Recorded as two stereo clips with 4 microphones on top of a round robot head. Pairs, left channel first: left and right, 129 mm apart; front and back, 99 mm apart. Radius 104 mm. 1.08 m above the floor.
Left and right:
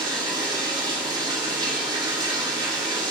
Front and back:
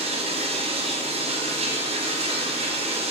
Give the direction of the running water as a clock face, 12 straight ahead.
5 o'clock.